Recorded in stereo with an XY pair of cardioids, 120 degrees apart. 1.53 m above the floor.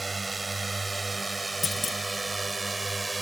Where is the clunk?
30° left.